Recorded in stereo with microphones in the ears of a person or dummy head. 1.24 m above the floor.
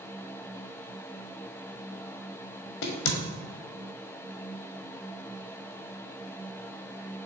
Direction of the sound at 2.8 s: 65° left (ahead or behind).